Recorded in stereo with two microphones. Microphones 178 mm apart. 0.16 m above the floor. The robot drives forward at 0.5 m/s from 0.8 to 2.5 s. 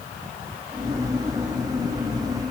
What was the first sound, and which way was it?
Only background noise.